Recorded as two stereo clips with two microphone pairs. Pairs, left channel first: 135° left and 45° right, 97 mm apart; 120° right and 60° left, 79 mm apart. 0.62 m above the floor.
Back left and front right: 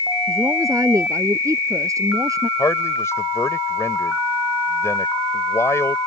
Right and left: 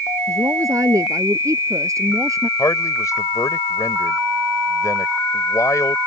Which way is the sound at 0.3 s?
15° left.